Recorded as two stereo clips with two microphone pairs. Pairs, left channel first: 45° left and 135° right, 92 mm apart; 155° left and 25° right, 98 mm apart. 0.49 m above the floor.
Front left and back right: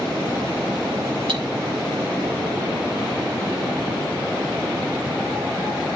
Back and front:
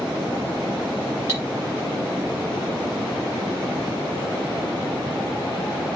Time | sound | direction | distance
1.3 | cutlery clinking | 140° right | 5 m